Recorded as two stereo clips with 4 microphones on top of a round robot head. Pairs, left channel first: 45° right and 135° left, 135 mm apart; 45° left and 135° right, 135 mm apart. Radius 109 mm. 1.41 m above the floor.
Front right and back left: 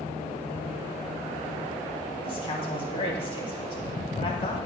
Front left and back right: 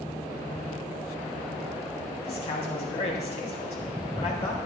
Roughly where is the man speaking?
Ahead.